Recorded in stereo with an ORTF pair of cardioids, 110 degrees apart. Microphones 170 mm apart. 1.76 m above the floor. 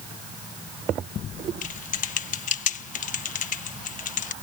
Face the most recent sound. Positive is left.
turn(degrees=45)